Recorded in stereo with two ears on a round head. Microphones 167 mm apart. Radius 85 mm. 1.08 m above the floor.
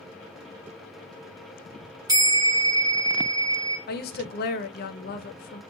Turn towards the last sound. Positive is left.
turn(degrees=50)  # may be behind; listen again after turning